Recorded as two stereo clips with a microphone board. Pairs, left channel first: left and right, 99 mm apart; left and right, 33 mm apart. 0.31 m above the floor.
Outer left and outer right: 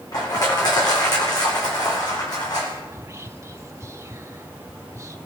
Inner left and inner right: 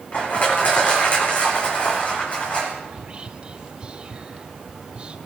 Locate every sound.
0.1 s crushing: 45° left (ahead or behind), 4 m
2.9 s whispering: 30° right (ahead or behind), 1.0 m